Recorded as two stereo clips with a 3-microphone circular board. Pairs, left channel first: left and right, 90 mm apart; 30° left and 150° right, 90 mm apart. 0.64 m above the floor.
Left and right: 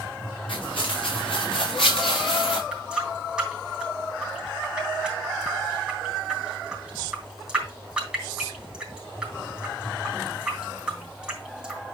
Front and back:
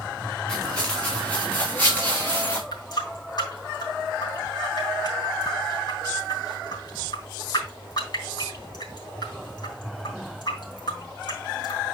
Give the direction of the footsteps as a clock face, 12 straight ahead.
8 o'clock.